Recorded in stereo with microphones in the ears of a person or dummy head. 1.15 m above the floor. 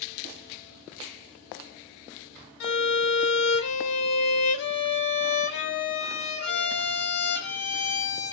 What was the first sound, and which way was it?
A violin, 55° left (ahead or behind).